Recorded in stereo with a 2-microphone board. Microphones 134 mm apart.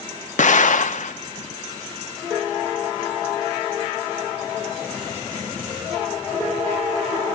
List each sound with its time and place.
0.4 s an explosion: 70° left (ahead or behind), 1.0 m